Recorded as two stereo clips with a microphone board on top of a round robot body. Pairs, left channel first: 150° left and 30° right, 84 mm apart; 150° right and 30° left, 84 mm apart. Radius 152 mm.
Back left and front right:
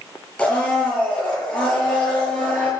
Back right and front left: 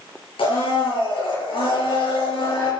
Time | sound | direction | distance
0.4 | a blender | 130° right | 8.5 m